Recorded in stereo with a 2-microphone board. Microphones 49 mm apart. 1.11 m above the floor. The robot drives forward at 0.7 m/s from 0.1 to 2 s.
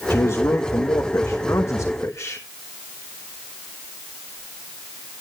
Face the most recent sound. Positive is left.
turn(degrees=65)  # may be behind; listen again after turning